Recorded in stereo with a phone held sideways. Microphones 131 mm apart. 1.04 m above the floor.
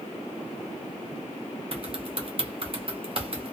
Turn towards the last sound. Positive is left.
turn(degrees=-45)  # may be behind; listen again after turning